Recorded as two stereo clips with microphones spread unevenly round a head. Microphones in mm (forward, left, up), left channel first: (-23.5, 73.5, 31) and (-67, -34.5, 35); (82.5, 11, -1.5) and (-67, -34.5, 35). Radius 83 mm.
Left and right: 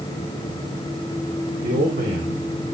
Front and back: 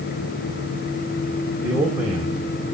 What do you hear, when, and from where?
1.6 s a man speaking: 90° right, 5 m